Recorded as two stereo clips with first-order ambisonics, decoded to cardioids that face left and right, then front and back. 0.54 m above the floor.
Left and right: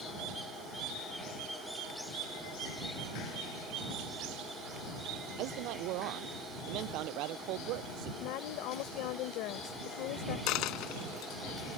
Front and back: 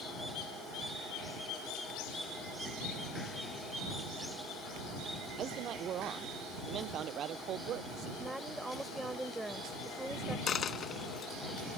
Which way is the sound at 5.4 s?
125° right.